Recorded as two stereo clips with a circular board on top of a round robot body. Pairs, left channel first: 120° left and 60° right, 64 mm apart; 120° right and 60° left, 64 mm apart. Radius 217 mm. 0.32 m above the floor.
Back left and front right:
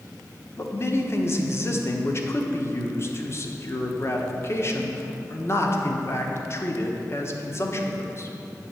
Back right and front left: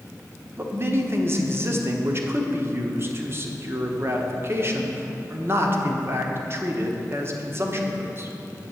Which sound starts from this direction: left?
A man speaking, at 0.6 s.